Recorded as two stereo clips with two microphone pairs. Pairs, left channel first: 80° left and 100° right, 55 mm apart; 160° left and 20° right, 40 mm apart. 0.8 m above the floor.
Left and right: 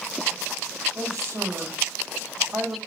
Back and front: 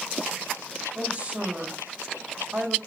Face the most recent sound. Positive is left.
turn(degrees=-75)